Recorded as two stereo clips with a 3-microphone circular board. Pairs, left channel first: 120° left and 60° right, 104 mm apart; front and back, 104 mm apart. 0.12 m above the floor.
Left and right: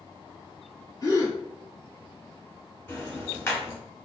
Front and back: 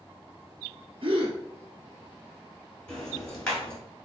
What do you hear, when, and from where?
1.0 s a gasp: 165° left, 1.1 m
2.9 s ticking: 80° left, 1.5 m